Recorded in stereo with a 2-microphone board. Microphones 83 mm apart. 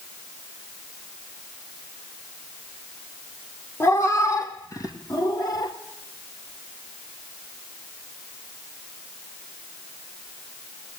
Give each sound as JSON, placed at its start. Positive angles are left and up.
{"t": 3.8, "sound": "a cat meowing", "side_deg": 40, "distance_m": 2.5}